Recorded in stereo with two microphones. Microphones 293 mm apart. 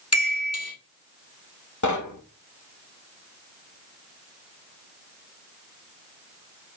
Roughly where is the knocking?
Left.